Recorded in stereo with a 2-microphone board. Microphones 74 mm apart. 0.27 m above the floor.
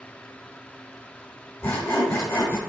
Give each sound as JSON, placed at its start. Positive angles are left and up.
{"t": 1.6, "sound": "sawing", "side_deg": 25, "distance_m": 1.8}